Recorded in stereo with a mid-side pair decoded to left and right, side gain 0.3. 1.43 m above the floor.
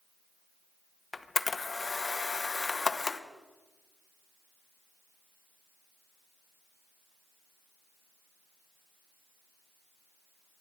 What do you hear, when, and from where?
1.1 s a camera shutter: 40° left, 1.1 m